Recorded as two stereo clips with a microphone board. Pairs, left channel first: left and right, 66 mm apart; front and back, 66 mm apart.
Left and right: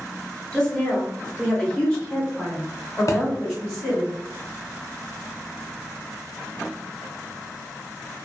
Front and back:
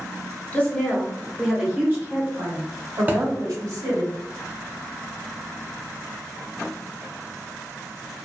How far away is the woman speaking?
About 1.0 m.